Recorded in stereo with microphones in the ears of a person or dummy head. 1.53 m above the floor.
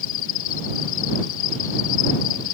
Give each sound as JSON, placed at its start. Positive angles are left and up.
{"t": 0.0, "sound": "an insect", "side_deg": 75}